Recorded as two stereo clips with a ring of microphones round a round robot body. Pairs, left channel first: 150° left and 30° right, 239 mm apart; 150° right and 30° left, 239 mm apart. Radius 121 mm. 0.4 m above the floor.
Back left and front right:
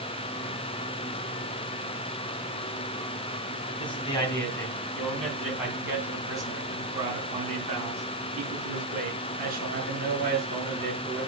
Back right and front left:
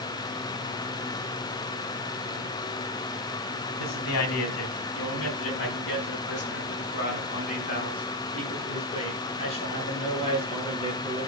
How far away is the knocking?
I don't hear knocking.